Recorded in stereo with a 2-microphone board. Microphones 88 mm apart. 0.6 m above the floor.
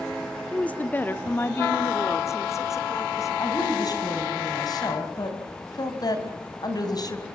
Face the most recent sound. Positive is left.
turn(degrees=50)  # may be behind; listen again after turning